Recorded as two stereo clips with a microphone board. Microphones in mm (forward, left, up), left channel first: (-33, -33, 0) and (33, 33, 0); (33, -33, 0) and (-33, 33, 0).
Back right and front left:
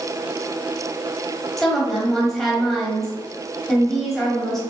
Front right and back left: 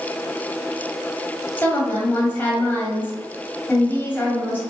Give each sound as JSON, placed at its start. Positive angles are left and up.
{"t": 1.6, "sound": "a woman speaking", "azimuth_deg": -55, "distance_m": 1.2}